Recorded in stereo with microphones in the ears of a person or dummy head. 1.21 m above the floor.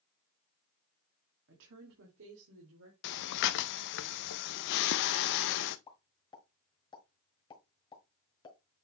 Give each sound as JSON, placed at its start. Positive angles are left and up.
{"t": 1.5, "sound": "a woman speaking", "side_deg": -65, "distance_m": 1.9}
{"t": 3.0, "sound": "breathing", "side_deg": 65, "distance_m": 0.6}
{"t": 5.9, "sound": "a pop", "side_deg": 25, "distance_m": 1.8}